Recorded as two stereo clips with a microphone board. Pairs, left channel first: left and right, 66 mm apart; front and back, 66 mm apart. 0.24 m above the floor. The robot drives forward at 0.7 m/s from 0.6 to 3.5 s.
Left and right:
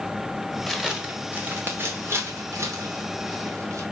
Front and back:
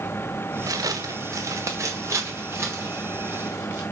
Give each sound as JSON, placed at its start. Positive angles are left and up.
{"t": 0.7, "sound": "footsteps", "azimuth_deg": 180, "distance_m": 1.0}